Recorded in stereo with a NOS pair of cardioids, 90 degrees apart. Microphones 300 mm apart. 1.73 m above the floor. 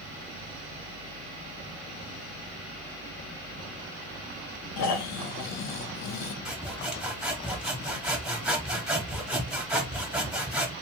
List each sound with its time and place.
4.8 s snoring: 60° left, 0.7 m
6.5 s sawing: 5° right, 1.2 m